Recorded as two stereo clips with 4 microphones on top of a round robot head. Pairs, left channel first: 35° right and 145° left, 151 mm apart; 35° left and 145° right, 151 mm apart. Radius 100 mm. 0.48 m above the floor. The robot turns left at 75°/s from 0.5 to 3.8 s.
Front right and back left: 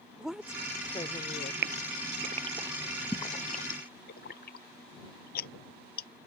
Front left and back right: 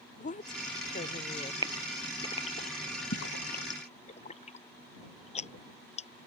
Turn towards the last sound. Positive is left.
turn(degrees=-10)